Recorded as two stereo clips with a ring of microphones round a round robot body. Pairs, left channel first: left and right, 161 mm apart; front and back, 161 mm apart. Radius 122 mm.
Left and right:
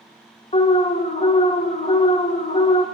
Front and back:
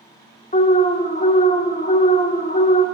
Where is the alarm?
40° left, 1.1 m.